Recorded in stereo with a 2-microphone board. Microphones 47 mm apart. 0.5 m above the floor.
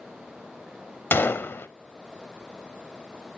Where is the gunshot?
55° left (ahead or behind), 0.6 m.